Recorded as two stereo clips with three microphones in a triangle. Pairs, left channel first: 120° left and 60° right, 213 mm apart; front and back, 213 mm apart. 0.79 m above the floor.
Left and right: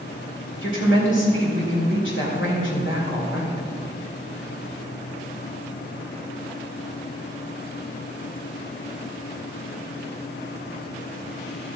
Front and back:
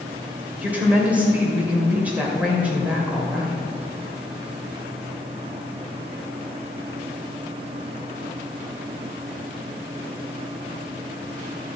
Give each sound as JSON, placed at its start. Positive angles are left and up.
{"t": 0.6, "sound": "a woman speaking", "azimuth_deg": 95, "distance_m": 2.5}